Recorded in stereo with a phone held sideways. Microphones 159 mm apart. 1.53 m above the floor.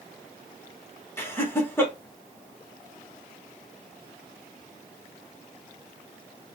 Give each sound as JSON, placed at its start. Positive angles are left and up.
{"t": 1.2, "sound": "laughter", "side_deg": 15, "distance_m": 2.0}